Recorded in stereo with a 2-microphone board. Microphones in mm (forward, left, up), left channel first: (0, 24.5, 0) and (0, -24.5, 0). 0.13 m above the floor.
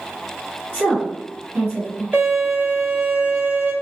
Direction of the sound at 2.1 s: 40° right (ahead or behind).